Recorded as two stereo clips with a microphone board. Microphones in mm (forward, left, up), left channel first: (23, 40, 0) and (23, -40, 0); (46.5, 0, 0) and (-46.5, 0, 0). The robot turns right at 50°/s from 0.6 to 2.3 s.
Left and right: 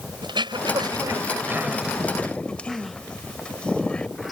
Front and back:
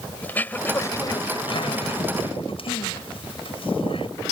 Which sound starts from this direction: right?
Throat clearing, at 0.2 s.